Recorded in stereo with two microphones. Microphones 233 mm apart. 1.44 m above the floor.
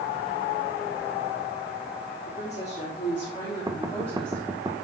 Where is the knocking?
15° right (ahead or behind), 1.3 m.